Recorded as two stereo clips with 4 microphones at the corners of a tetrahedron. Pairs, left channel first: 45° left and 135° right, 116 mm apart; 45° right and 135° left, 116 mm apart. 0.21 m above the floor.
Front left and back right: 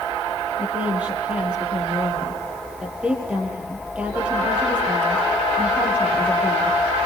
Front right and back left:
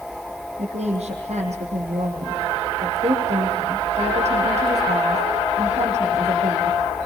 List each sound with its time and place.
0.6 s a woman speaking: 145° left, 6.5 m